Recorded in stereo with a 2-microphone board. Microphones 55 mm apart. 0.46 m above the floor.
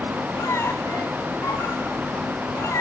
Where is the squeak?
65° left (ahead or behind), 1.7 m.